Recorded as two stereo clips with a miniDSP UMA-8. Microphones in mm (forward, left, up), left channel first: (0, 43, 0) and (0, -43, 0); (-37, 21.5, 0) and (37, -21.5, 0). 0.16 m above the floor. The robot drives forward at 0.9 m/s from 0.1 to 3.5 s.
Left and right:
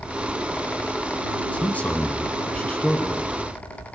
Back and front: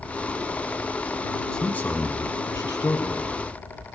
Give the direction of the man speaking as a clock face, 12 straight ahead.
9 o'clock.